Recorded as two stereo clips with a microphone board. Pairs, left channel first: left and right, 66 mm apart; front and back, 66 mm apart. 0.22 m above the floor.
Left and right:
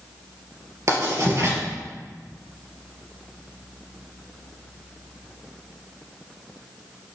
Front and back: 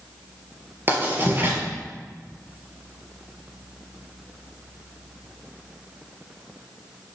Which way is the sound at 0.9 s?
125° right.